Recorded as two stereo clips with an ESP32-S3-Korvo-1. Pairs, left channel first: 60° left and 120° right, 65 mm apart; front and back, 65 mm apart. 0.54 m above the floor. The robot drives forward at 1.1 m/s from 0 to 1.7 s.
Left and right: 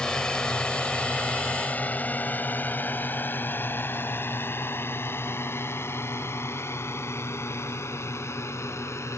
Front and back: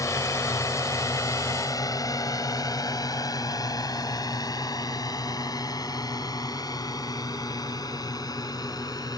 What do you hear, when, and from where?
0.0 s a drone: 15° right; by 9.2 s 15° left